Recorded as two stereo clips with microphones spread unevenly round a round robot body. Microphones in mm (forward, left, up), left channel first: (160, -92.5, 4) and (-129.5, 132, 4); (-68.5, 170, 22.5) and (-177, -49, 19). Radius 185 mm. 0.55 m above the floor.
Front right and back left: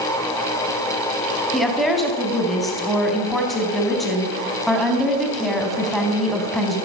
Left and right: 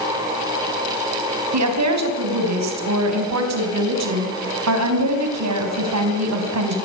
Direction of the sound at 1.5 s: 125° right.